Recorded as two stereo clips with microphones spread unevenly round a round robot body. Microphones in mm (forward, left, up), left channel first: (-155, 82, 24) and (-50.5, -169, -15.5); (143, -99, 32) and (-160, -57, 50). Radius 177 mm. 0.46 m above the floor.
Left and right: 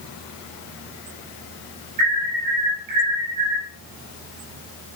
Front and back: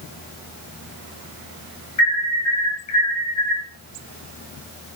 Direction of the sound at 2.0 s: 40° right.